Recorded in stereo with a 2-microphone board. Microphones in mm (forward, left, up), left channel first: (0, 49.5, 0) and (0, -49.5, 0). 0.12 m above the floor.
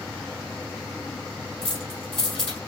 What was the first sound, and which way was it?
Keys jangling, 70° left (ahead or behind).